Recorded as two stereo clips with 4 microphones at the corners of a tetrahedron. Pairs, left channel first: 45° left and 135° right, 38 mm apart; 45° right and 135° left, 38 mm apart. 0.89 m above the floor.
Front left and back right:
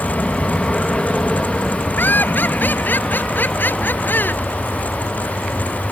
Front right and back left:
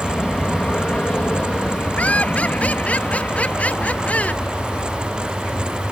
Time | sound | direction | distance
0.0 | an aircraft | 5° right | ?
2.0 | laughter | 5° left | ?